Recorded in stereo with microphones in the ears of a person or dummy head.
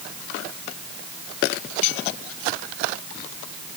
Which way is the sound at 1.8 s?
45° left (ahead or behind).